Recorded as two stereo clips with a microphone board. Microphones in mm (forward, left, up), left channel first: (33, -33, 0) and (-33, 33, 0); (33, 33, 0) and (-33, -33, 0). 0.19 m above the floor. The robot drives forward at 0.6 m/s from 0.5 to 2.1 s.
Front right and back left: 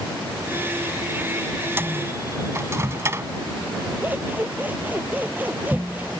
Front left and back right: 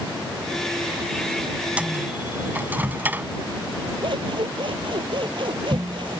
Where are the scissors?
155° right.